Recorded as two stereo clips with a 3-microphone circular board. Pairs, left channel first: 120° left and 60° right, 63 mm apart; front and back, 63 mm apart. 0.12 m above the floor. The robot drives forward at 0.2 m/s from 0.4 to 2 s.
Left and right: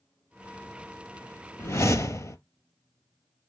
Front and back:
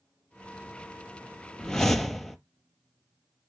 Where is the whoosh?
80° left, 0.6 m; by 2.4 s 85° left, 0.6 m.